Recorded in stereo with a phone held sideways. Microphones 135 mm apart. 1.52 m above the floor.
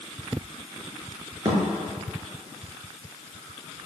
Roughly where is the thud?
Right.